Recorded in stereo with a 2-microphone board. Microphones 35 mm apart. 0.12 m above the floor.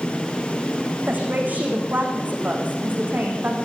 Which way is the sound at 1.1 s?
55° right (ahead or behind).